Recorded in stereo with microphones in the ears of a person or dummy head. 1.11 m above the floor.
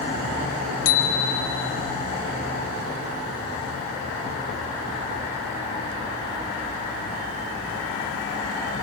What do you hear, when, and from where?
0.8 s a bicycle bell: 80° left, 4 m